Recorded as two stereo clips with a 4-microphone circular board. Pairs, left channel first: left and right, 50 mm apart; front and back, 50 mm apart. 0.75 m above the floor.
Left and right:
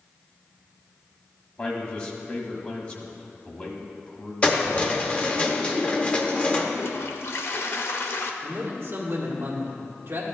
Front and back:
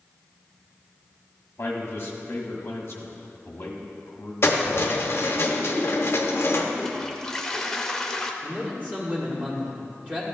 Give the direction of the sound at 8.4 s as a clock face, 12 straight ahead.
4 o'clock.